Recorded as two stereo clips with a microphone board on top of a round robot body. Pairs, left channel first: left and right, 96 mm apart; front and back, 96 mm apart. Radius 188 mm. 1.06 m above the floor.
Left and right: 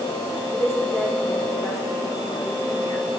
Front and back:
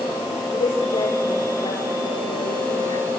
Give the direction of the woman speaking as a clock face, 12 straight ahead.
11 o'clock.